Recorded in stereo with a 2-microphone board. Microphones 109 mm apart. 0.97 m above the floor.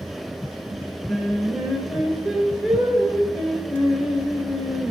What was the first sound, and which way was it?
Singing, centre (ahead or behind).